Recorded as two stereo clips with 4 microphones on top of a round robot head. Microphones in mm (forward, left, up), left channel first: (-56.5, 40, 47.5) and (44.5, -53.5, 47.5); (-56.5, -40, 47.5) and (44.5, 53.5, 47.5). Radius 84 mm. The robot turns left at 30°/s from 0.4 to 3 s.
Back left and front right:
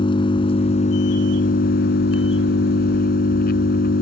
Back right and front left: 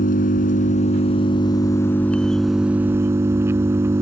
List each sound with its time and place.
0.0 s an engine running: 165° right; by 4.0 s 115° left